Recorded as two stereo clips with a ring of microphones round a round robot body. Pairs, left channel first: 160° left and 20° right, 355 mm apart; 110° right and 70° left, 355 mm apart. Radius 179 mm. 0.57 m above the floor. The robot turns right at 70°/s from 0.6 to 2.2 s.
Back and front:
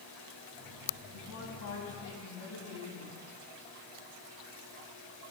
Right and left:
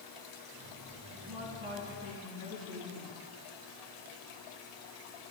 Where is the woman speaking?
90° left, 5.5 m; by 3.2 s 170° left, 5.5 m.